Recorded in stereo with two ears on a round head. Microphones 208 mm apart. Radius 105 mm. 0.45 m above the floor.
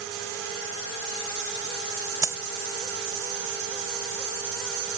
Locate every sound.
2.2 s a dropped coin: 15° right (ahead or behind)